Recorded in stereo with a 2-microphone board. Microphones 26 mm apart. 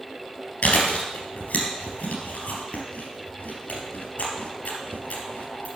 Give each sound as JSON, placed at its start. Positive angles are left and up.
{"t": 0.6, "sound": "chewing", "side_deg": 70, "distance_m": 3.0}